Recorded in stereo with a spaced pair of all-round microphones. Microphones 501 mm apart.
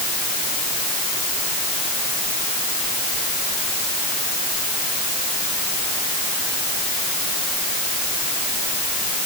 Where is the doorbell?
No doorbell in this recording.